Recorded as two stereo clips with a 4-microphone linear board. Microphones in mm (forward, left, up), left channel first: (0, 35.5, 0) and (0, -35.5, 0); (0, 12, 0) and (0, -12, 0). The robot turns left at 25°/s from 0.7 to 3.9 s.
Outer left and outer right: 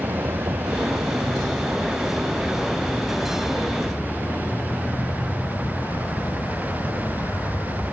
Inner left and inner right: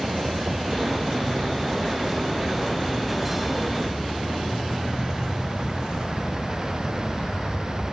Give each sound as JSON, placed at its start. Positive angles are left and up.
{"t": 0.0, "sound": "a vehicle", "side_deg": -55}